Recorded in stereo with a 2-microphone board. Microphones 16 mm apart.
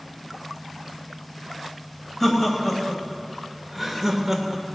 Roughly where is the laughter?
Centre.